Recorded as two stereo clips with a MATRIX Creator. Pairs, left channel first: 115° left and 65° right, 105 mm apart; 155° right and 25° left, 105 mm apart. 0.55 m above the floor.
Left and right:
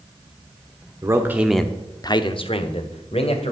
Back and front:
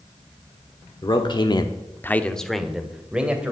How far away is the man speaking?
About 1.1 m.